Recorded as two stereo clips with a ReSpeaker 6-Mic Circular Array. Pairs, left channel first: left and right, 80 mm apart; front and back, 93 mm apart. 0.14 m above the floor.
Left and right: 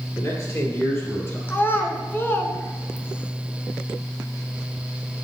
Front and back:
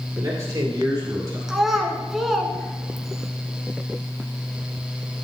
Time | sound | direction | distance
0.2 | a man speaking | 130° left | 3 m
1.5 | a child speaking | 95° left | 1.2 m